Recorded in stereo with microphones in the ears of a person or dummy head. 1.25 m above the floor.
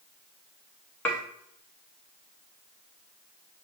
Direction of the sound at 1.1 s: 10° left (ahead or behind).